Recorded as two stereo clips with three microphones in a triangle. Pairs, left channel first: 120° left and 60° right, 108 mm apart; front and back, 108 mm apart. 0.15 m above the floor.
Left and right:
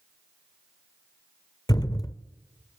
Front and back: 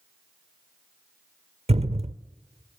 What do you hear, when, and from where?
1.7 s a thud: 175° left, 0.7 m